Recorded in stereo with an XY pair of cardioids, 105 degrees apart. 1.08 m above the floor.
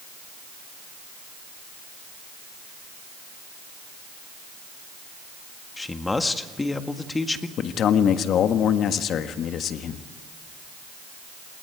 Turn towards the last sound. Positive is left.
turn(degrees=65)